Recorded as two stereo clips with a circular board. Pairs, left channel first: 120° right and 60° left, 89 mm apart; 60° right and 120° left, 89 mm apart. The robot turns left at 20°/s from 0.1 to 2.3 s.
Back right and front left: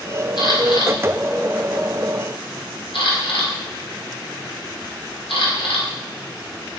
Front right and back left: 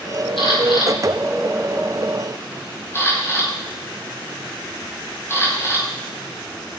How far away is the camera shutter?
About 5 m.